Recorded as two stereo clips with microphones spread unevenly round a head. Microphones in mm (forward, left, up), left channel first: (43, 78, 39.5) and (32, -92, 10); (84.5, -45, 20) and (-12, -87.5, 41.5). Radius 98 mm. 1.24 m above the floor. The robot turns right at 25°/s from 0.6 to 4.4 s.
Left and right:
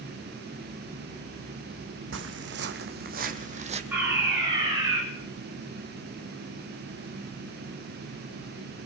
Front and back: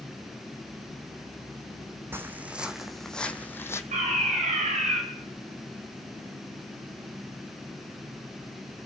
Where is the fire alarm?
175° right, 10 m; by 5.0 s 165° right, 10 m.